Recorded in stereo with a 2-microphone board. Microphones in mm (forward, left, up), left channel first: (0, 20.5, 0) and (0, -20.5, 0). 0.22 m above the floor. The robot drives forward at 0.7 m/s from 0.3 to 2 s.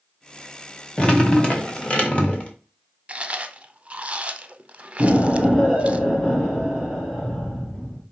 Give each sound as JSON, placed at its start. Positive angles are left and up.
{"t": 1.0, "sound": "dripping", "side_deg": 25, "distance_m": 1.5}
{"t": 3.1, "sound": "chewing", "side_deg": -30, "distance_m": 0.5}
{"t": 5.0, "sound": "an explosion", "side_deg": 15, "distance_m": 3.0}